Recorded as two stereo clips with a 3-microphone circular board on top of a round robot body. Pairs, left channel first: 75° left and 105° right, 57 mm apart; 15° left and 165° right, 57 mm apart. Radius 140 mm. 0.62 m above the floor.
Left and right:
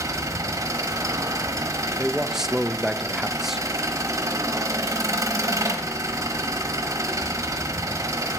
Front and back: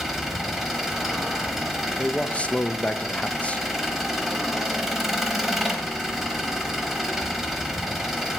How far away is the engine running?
About 1.1 m.